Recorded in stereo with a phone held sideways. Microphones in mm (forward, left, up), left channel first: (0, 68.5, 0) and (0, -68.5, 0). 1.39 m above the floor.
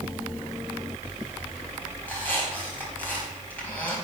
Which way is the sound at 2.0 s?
10° left (ahead or behind).